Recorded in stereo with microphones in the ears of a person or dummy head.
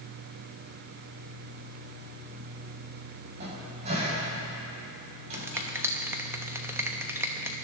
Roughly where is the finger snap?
Centre.